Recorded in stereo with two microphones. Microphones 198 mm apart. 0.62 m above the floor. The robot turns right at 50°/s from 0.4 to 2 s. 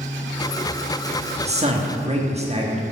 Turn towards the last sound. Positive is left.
turn(degrees=-30)  # may be behind; listen again after turning